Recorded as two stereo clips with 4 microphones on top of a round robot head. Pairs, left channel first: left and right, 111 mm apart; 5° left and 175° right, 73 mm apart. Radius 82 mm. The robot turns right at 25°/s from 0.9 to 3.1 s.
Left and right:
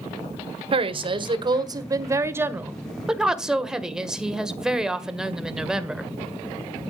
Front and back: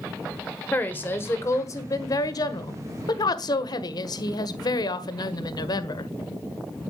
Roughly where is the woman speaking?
Ahead right.